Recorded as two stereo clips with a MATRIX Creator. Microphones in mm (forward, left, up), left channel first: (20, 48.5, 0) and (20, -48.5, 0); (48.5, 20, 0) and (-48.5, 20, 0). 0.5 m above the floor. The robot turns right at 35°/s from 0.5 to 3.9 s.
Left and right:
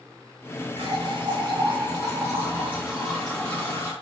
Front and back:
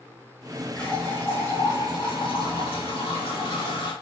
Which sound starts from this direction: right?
A running tap, at 0.8 s.